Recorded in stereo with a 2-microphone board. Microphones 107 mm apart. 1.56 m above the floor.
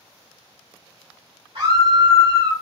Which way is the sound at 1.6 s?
70° right (ahead or behind).